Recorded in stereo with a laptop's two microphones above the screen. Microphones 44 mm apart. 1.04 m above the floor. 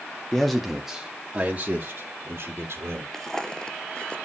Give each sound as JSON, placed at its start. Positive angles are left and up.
{"t": 0.3, "sound": "a man speaking", "side_deg": 10, "distance_m": 1.7}
{"t": 3.1, "sound": "footsteps", "side_deg": 10, "distance_m": 1.1}